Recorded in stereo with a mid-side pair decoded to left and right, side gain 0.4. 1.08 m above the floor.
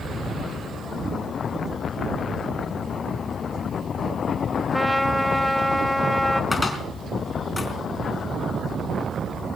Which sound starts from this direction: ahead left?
A cupboard door, at 6.5 s.